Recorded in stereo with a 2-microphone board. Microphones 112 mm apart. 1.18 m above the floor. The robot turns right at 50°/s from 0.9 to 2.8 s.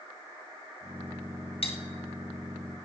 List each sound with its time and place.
1.6 s cutlery clinking: 55° left (ahead or behind), 1.2 m; by 1.8 s 65° left (ahead or behind), 1.2 m